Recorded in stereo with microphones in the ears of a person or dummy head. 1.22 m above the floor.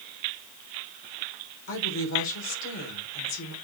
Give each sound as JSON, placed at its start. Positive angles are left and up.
{"t": 1.7, "sound": "a woman speaking", "side_deg": 75, "distance_m": 4.0}